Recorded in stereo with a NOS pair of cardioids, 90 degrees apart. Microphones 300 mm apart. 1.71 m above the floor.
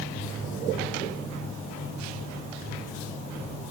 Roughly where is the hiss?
I don't hear a hiss.